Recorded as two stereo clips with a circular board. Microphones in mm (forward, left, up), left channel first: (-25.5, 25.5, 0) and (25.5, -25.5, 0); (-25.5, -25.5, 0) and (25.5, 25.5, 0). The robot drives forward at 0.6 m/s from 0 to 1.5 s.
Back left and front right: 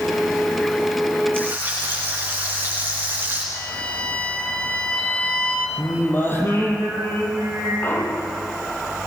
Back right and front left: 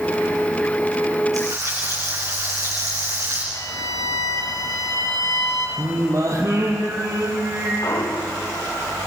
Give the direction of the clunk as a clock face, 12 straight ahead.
6 o'clock.